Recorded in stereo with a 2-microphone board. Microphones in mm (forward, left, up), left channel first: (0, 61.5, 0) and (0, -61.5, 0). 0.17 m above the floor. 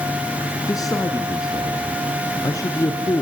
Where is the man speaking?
30° left (ahead or behind), 2.0 m.